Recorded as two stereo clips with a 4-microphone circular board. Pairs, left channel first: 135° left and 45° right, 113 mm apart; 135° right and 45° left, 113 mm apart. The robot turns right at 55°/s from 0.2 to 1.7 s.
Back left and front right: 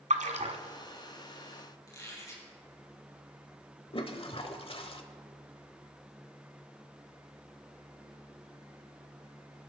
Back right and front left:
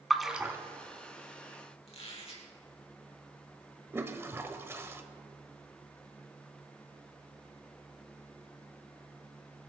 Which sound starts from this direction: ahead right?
A splash, at 0.1 s.